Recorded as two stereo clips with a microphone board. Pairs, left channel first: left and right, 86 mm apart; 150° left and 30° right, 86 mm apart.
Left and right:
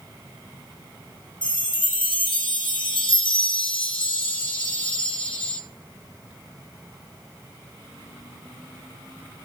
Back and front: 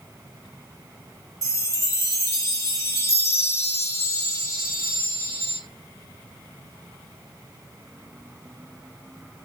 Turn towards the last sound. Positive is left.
turn(degrees=95)